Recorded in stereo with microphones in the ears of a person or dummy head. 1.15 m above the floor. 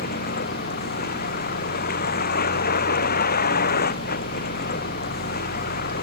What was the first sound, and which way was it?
A vehicle, 50° left (ahead or behind).